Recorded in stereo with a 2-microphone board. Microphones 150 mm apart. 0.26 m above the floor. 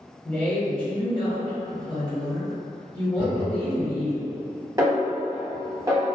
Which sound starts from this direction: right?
A snare drum, at 4.8 s.